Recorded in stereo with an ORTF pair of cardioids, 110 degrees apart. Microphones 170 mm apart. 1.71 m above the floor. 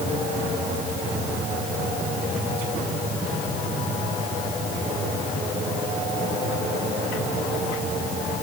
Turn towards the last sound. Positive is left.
No sound to turn to.